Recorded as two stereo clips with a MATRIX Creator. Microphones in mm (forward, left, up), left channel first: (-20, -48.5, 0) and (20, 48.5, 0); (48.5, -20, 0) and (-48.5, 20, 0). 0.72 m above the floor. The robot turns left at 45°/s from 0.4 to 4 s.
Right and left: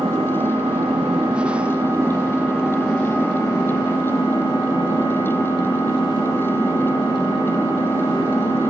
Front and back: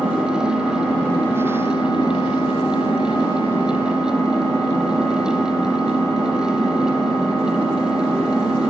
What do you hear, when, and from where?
0.0 s an engine running: 85° left, 3 m; by 8.7 s 80° right, 3 m